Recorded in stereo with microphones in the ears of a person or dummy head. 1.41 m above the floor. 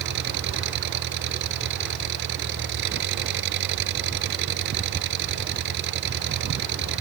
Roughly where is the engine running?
Right.